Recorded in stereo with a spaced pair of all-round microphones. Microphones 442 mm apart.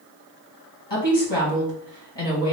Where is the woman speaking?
70° left (ahead or behind), 1.9 m.